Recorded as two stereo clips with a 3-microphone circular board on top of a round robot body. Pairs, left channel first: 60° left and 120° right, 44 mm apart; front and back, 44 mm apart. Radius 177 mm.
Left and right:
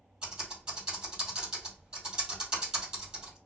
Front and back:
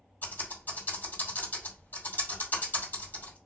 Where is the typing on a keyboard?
45° right, 3 m.